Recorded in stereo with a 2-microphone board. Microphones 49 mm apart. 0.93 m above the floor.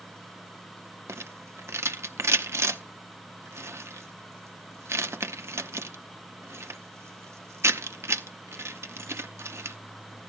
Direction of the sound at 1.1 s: 60° right (ahead or behind).